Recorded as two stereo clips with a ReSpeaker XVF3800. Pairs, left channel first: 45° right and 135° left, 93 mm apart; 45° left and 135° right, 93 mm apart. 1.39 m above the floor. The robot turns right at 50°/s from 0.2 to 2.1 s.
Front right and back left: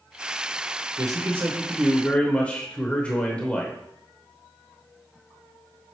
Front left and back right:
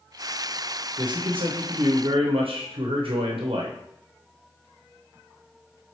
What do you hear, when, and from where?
1.0 s a man speaking: straight behind, 0.7 m; by 3.8 s 120° right, 0.7 m